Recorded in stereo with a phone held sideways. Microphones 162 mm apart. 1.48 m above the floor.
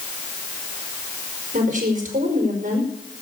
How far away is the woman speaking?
About 5 m.